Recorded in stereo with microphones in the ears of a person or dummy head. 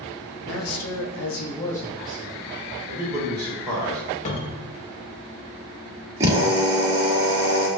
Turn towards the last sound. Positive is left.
turn(degrees=-20)  # may be behind; listen again after turning